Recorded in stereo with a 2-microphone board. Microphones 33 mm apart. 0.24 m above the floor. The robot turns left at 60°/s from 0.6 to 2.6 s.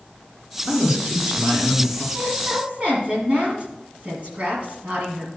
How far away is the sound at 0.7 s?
About 3 m.